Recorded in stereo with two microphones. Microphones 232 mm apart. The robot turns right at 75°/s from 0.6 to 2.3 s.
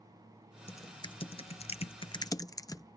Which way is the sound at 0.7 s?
10° left (ahead or behind).